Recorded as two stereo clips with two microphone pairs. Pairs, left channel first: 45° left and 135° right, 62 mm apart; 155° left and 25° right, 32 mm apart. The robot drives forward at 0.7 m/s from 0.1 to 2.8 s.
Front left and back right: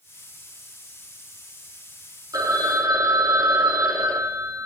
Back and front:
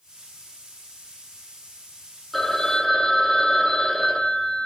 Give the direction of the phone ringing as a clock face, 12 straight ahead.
4 o'clock.